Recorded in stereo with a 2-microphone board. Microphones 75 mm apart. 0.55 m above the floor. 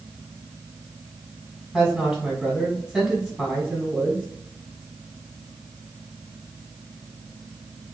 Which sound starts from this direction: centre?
A woman speaking, at 1.7 s.